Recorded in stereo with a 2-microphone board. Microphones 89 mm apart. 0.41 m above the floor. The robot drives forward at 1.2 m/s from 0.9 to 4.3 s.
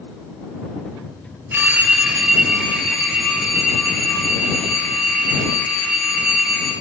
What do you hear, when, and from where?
1.5 s a phone ringing: 20° right (ahead or behind), 0.5 m; by 6.7 s 5° right (ahead or behind), 3.5 m